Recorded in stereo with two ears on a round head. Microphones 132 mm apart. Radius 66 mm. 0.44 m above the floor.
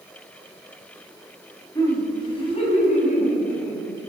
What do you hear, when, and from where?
1.8 s laughter: 20° left (ahead or behind), 3.5 m; by 4.0 s 65° left (ahead or behind), 4 m